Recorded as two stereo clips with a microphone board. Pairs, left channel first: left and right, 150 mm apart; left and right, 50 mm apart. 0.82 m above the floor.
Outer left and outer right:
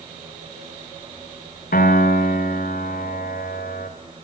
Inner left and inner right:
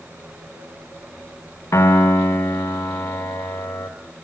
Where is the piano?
70° left (ahead or behind), 3.5 m.